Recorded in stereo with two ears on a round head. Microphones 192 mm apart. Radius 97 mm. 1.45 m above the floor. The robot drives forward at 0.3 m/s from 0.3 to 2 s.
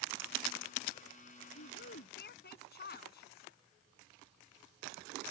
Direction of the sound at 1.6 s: 50° left (ahead or behind).